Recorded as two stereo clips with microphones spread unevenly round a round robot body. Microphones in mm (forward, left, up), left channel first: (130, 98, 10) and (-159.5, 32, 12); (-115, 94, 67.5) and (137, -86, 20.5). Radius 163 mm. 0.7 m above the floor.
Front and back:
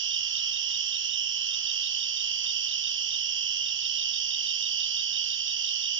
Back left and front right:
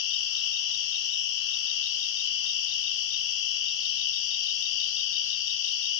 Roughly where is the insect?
Behind left.